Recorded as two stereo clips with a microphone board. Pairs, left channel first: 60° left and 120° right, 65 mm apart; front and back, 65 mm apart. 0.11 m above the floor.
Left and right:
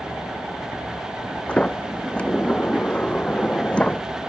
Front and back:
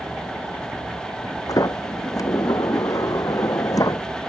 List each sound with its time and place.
1.5 s a sliding door: 10° right